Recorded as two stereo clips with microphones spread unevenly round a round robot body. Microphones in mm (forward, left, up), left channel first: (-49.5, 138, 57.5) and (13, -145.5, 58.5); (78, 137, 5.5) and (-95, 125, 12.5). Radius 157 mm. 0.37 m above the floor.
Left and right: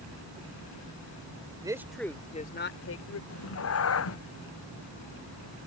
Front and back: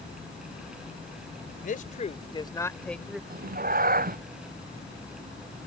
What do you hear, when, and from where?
1.6 s a man speaking: 5° right; by 3.2 s 95° left
3.3 s a cat meowing: 145° left